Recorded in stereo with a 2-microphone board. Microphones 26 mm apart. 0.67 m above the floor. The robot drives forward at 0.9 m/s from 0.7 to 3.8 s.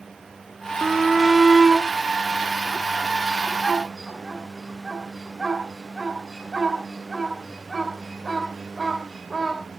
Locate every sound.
0.8 s a shout: 20° right (ahead or behind), 0.7 m; by 9.6 s 5° right (ahead or behind), 2.5 m